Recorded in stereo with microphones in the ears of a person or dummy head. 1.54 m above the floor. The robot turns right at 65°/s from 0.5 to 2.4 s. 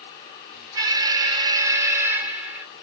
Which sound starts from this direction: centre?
An alarm, at 0.8 s.